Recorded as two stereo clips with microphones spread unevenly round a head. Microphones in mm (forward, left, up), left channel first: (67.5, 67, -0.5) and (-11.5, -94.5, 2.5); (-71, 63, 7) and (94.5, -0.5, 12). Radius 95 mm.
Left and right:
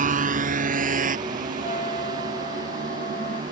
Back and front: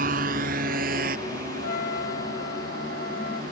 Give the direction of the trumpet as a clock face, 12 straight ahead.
8 o'clock.